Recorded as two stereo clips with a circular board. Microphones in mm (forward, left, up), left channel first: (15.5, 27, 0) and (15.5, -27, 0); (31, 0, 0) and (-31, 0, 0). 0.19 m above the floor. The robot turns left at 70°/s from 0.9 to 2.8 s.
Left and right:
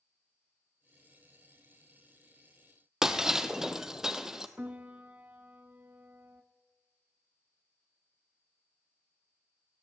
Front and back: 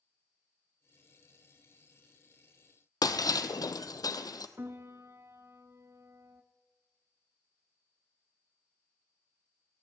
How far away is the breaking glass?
About 0.7 m.